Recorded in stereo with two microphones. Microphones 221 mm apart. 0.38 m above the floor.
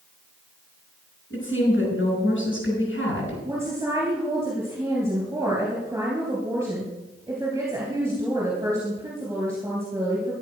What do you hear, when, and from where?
1.3 s a woman speaking: 65° left (ahead or behind), 5.5 m
3.5 s a woman speaking: 10° right (ahead or behind), 3 m